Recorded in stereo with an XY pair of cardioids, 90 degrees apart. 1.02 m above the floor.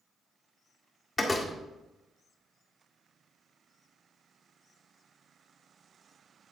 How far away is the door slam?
About 1.7 m.